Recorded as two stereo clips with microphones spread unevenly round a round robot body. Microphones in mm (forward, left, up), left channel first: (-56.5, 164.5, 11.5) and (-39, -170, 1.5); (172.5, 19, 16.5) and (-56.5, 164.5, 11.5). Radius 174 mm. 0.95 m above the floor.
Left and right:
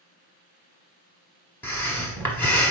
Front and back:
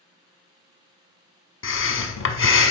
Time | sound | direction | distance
1.6 | breathing | 10° left | 0.9 m